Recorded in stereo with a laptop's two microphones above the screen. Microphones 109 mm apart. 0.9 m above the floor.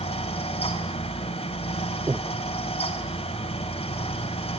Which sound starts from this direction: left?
A fan, at 0.0 s.